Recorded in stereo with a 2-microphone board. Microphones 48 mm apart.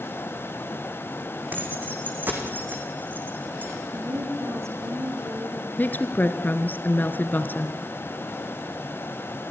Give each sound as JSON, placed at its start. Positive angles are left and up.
{"t": 1.5, "sound": "keys jangling", "side_deg": -35, "distance_m": 4.5}
{"t": 3.9, "sound": "a woman speaking", "side_deg": -65, "distance_m": 7.0}
{"t": 5.8, "sound": "a woman speaking", "side_deg": 40, "distance_m": 1.9}